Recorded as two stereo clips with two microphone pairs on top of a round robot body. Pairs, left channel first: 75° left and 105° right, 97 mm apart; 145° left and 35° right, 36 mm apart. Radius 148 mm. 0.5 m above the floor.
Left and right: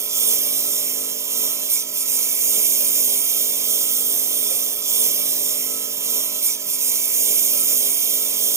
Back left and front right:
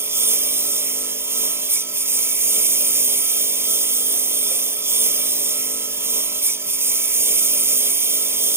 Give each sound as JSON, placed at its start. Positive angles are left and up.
{"t": 0.0, "sound": "a lawn mower", "azimuth_deg": -40}